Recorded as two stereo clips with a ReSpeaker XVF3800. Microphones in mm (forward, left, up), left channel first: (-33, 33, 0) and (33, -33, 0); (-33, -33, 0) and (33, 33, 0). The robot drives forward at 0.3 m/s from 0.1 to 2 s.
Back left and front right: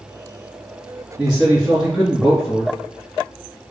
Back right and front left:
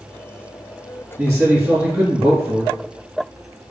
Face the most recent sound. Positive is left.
turn(degrees=30)